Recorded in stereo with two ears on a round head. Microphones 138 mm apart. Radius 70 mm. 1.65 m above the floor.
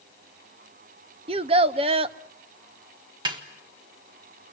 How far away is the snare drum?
About 1.6 m.